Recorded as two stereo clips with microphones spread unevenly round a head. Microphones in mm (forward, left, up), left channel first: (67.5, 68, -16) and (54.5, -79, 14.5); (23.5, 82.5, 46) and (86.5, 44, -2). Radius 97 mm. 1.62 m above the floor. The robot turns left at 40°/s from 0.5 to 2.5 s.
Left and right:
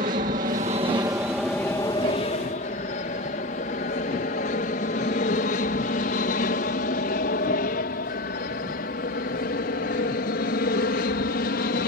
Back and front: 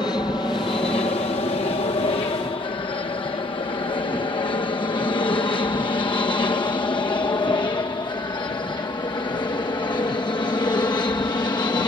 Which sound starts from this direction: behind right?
An aircraft, at 0.0 s.